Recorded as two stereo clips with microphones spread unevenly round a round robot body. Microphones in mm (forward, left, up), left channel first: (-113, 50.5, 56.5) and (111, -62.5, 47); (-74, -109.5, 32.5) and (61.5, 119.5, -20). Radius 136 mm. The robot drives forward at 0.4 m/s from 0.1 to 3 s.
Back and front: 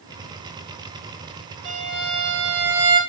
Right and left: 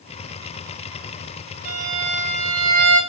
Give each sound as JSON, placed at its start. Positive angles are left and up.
{"t": 1.6, "sound": "a violin", "azimuth_deg": 5, "distance_m": 2.5}